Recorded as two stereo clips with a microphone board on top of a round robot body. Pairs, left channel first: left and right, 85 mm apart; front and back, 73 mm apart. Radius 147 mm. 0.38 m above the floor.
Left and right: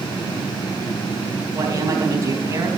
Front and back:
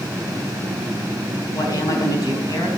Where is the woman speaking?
35° right, 3 m.